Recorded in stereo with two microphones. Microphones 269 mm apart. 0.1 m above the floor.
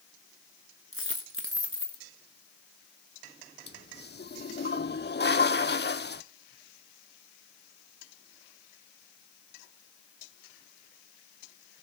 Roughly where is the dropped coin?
Right.